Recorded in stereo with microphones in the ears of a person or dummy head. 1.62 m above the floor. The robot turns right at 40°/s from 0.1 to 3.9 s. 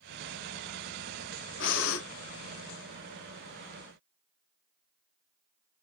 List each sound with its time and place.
1.6 s breathing: 65° left (ahead or behind), 0.5 m; by 2.0 s 80° left, 0.5 m